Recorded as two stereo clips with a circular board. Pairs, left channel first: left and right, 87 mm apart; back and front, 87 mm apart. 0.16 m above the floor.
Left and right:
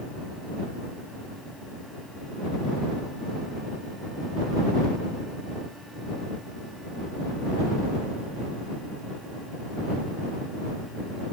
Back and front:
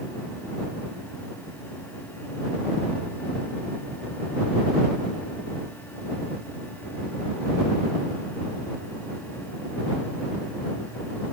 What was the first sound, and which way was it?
Only background noise.